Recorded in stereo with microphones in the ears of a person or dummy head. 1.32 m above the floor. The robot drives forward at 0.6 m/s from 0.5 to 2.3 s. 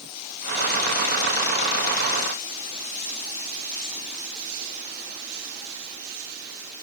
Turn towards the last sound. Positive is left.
No sound to turn to.